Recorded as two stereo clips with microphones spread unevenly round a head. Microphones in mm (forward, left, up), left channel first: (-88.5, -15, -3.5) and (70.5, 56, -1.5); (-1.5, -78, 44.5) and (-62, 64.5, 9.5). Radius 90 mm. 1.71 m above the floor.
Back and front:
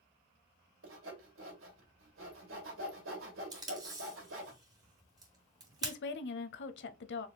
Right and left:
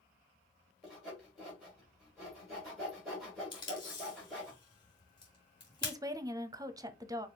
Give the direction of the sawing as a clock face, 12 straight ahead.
11 o'clock.